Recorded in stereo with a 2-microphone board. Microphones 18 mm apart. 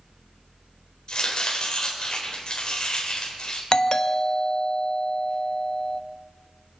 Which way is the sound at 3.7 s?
35° left (ahead or behind).